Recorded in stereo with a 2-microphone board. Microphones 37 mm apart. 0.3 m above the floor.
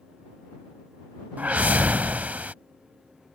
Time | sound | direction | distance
1.4 | a whoosh | 45° right (ahead or behind) | ?